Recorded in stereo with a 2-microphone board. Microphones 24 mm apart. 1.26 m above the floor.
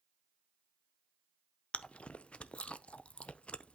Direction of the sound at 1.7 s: 55° left (ahead or behind).